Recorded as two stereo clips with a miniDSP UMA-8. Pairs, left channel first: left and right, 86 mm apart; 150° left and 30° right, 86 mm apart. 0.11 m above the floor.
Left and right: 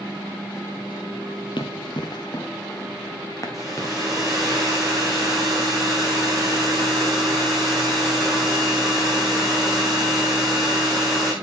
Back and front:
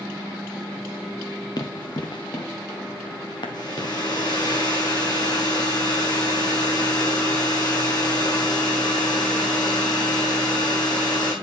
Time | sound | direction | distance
1.6 | running footsteps | 110° left | 1.5 m
3.5 | a hair dryer | 175° right | 3.5 m